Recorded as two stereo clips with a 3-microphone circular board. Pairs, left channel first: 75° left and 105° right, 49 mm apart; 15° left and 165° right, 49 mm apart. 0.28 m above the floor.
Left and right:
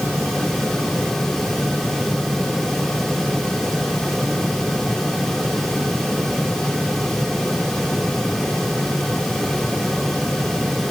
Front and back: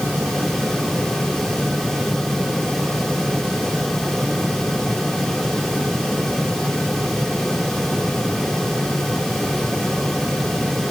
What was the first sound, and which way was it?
Only background noise.